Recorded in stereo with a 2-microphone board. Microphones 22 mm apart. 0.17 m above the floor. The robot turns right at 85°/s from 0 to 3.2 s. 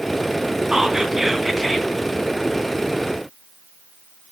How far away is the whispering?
About 1.5 m.